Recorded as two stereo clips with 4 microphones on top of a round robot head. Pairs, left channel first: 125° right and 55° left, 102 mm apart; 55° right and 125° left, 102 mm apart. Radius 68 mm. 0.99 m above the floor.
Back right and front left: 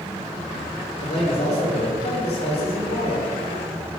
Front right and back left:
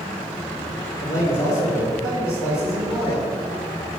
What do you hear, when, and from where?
1.0 s a man speaking: 115° right, 1.8 m